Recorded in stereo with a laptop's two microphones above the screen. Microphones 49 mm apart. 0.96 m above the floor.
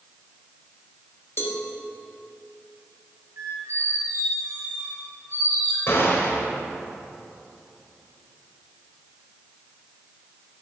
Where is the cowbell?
55° left (ahead or behind), 1.1 m.